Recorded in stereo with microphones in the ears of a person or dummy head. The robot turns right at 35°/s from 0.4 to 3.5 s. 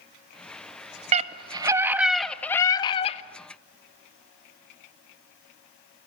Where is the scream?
35° right, 1.5 m; by 3.2 s 35° left, 1.5 m.